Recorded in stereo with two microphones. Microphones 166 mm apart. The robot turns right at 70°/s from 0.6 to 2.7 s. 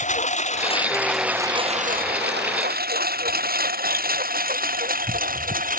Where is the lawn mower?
45° left (ahead or behind); by 5.8 s 55° right (ahead or behind).